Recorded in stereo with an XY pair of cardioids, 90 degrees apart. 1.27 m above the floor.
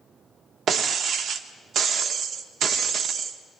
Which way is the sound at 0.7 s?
70° right.